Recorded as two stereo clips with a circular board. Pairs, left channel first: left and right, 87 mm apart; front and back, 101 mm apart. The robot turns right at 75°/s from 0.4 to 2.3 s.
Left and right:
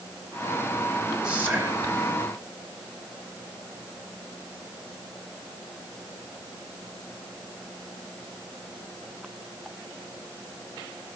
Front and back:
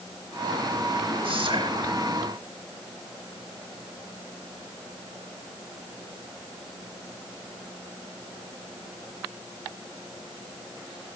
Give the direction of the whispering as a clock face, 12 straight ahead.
6 o'clock.